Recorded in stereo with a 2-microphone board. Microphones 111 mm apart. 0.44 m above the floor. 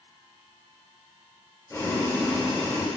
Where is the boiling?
25° left (ahead or behind), 1.8 m.